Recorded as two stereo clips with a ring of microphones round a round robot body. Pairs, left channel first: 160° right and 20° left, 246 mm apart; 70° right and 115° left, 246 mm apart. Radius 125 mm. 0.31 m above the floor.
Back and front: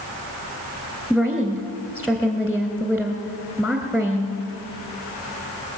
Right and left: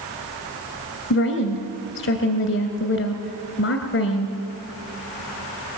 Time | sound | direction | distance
1.1 | a woman speaking | 75° right | 1.8 m